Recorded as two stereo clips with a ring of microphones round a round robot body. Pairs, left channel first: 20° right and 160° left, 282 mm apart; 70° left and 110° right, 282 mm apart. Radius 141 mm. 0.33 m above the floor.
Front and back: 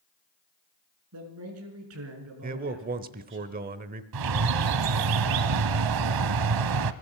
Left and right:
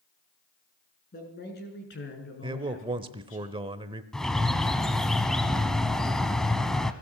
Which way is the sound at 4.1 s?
155° left.